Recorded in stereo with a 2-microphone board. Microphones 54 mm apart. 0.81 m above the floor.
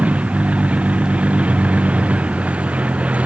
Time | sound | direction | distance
0.0 | a vehicle | 25° right (ahead or behind) | ?